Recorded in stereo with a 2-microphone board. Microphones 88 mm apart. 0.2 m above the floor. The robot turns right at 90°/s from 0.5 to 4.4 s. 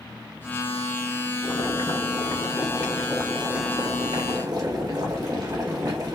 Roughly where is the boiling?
Ahead left.